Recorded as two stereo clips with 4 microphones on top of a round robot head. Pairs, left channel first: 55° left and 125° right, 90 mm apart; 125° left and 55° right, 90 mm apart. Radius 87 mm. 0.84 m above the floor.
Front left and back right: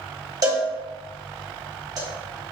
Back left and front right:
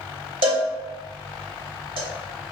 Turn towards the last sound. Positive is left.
turn(degrees=-75)